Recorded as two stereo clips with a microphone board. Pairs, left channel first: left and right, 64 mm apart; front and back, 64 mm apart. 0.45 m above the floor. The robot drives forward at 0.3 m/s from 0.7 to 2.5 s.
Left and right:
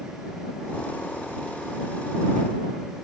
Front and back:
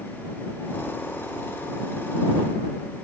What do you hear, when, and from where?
0.7 s a thud: 85° left, 0.8 m